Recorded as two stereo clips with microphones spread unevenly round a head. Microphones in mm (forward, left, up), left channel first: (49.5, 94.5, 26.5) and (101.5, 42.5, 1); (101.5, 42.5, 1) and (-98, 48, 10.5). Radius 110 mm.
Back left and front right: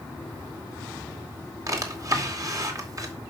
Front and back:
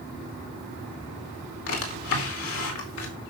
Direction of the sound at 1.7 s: 5° left.